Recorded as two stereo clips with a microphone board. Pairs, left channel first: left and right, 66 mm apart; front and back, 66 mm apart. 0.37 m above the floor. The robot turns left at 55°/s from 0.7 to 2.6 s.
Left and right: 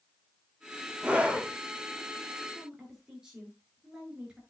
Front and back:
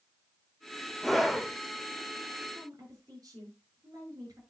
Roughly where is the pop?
I don't hear a pop.